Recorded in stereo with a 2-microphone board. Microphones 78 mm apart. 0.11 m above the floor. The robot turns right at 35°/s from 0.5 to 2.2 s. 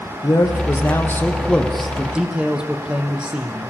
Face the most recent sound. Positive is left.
turn(degrees=-165)